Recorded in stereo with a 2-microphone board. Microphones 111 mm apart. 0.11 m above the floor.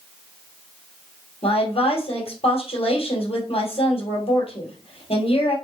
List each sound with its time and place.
1.4 s a woman speaking: 60° left (ahead or behind), 2 m